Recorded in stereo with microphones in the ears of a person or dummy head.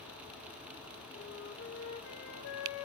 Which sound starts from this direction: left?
A flute, at 1.1 s.